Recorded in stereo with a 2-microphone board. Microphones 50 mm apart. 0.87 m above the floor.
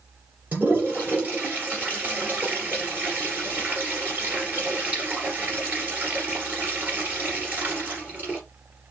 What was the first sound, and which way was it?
A toilet flushing, 30° right (ahead or behind).